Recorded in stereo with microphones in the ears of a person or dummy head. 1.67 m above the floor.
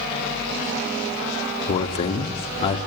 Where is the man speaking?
30° left (ahead or behind), 1.7 m.